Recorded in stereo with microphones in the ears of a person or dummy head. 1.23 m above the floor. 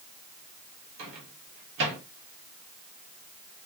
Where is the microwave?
70° right (ahead or behind), 1.1 m.